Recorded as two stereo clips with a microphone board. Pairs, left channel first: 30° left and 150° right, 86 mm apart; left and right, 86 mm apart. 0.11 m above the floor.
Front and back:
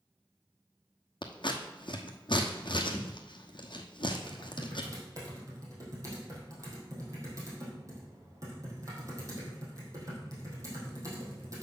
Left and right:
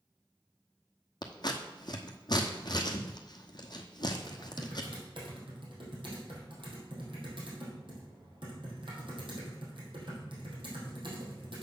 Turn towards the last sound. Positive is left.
turn(degrees=-100)